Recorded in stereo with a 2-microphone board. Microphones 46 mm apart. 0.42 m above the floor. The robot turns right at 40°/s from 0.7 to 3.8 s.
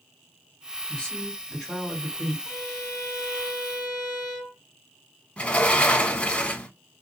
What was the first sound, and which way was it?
A woman speaking, 150° left.